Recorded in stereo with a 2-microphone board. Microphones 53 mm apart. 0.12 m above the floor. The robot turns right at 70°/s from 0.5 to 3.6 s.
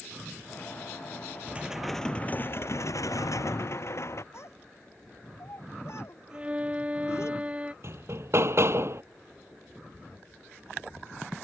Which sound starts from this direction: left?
A child speaking, at 4.3 s.